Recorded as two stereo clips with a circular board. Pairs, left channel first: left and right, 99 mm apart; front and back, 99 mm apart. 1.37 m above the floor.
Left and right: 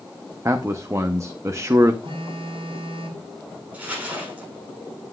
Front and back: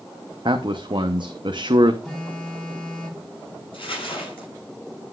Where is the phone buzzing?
80° right, 4 m.